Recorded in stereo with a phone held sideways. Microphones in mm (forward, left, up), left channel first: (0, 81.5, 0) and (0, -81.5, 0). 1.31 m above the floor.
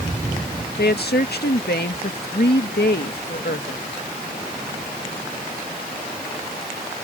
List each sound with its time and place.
0.8 s a woman speaking: 85° left